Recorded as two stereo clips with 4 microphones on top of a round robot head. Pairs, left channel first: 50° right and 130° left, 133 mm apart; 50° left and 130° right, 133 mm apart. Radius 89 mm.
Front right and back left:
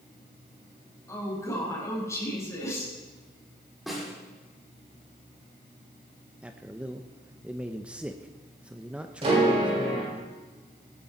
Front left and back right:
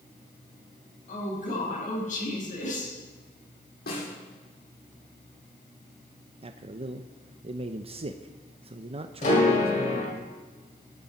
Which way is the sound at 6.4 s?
150° right.